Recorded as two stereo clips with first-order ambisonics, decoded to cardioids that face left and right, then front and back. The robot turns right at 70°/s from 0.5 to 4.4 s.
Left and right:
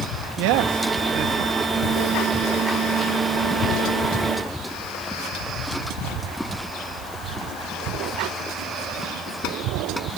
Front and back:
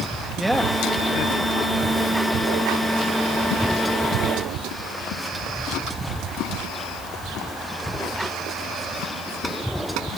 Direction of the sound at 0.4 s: 95° right.